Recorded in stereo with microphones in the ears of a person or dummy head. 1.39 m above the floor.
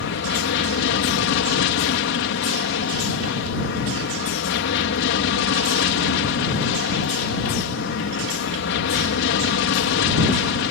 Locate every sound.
0.0 s an aircraft: 55° left (ahead or behind)